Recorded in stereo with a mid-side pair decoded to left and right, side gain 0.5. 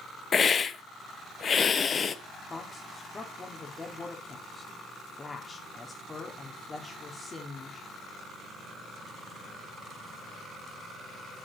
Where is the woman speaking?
25° left, 2 m.